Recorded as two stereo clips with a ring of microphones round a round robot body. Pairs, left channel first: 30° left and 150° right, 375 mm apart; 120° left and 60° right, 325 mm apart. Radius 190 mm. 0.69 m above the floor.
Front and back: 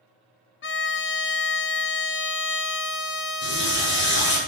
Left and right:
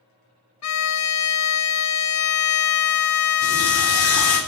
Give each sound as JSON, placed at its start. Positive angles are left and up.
{"t": 0.6, "sound": "a violin", "azimuth_deg": 90, "distance_m": 0.8}
{"t": 3.4, "sound": "a running tap", "azimuth_deg": 95, "distance_m": 4.5}